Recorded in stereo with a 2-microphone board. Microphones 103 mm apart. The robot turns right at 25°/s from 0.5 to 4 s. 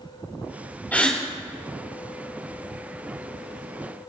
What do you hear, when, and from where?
0.9 s a gasp: 15° left (ahead or behind), 3.5 m; by 1.2 s 10° left (ahead or behind), 3.5 m